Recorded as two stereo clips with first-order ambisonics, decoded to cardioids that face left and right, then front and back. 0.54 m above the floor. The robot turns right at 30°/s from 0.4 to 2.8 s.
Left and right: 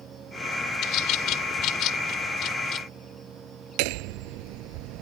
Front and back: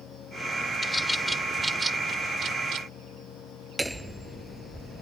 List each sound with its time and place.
0.8 s a bird: 75° left; by 2.9 s 135° left
3.8 s hammering: 95° right